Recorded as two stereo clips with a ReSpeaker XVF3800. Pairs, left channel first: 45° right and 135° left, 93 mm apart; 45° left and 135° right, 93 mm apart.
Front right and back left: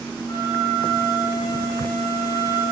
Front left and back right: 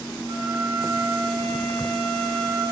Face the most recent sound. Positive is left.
turn(degrees=-95)